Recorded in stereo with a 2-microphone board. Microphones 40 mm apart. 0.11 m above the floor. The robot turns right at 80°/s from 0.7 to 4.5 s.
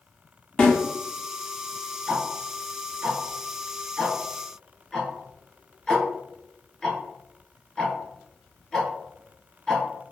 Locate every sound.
0.6 s a snare drum: 20° left (ahead or behind), 1.9 m; by 0.8 s 30° left (ahead or behind), 1.9 m
2.1 s ticking: 5° right (ahead or behind), 0.7 m; by 9.8 s 10° left (ahead or behind), 0.7 m